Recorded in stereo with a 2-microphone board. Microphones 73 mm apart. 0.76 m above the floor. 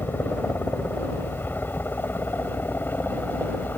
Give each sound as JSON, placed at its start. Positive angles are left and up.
{"t": 0.0, "sound": "a helicopter", "side_deg": 30}